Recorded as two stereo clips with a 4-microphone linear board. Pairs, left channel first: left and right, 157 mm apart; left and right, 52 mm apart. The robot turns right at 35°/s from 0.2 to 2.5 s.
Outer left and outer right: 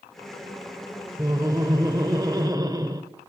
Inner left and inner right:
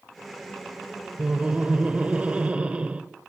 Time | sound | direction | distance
1.2 | laughter | 20° right (ahead or behind) | 0.9 m